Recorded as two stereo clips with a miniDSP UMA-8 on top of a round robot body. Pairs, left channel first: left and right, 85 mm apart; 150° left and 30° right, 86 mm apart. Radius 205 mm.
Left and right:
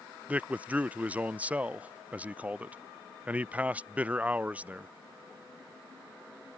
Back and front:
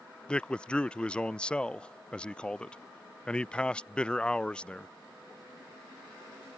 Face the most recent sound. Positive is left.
turn(degrees=-145)